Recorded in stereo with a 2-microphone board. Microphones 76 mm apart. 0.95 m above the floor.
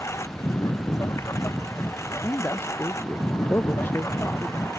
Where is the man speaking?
30° left (ahead or behind).